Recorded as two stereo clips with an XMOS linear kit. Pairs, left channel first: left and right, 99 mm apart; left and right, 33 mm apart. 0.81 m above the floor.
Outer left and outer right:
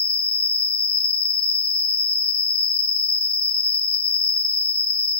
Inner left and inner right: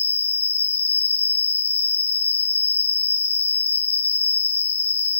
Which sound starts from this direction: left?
An insect, at 0.0 s.